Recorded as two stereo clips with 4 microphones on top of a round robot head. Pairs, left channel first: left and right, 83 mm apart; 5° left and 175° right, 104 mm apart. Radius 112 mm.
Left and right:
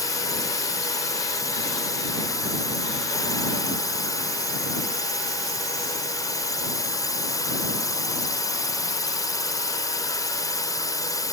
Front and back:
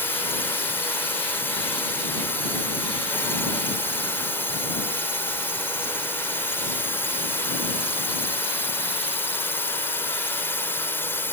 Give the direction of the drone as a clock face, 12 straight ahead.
10 o'clock.